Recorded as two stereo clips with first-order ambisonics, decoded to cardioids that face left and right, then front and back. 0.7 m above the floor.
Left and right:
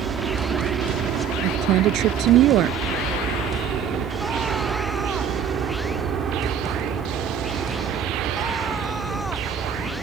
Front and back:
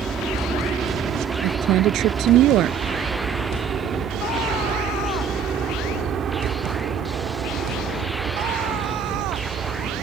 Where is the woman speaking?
135° right.